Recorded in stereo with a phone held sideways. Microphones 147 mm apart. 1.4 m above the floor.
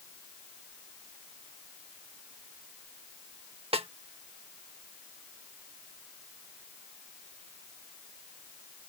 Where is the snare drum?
40° right (ahead or behind).